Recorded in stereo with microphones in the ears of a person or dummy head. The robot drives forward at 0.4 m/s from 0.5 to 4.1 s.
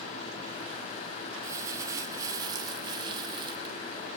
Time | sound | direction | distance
1.4 | crumpling | 20° right (ahead or behind) | 2 m